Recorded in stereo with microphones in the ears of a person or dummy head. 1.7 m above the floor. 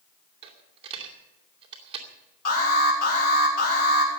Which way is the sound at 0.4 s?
35° right (ahead or behind).